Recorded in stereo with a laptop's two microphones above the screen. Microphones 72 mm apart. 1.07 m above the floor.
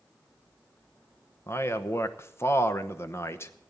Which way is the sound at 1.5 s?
35° left (ahead or behind).